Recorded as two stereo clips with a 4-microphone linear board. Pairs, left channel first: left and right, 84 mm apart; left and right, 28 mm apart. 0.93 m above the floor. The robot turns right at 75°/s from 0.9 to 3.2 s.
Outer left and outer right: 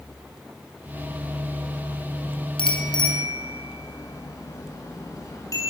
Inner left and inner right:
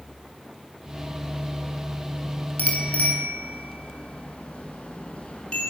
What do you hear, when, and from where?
2.6 s a bicycle bell: 90° left, 7.5 m; by 5.7 s 40° left (ahead or behind), 7.5 m